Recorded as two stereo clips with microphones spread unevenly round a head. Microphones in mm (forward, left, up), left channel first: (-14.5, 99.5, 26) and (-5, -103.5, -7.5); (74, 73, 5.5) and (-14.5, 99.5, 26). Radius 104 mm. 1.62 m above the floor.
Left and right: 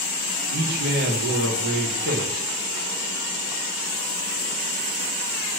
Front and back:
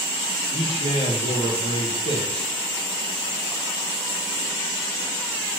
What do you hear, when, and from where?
0.5 s a man speaking: 40° right, 1.8 m